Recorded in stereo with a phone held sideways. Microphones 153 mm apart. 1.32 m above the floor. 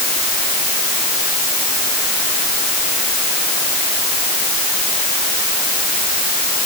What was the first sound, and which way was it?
Only background noise.